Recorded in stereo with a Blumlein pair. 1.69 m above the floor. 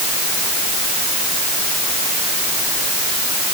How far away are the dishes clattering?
No dishes clattering in this recording.